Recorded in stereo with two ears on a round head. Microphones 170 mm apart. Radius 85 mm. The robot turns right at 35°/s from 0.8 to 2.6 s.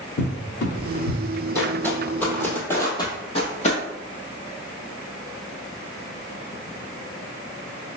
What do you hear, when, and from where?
0.2 s a cupboard door: 60° left (ahead or behind), 0.8 m; by 1.2 s 45° left (ahead or behind), 0.8 m
1.6 s footsteps: 10° left (ahead or behind), 1.3 m; by 3.8 s 40° left (ahead or behind), 1.5 m